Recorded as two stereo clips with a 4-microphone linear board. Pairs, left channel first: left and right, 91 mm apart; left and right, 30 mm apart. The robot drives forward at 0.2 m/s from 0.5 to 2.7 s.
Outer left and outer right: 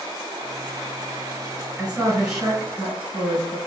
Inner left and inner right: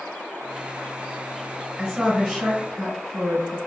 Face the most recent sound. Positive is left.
turn(degrees=-5)  # may be behind; listen again after turning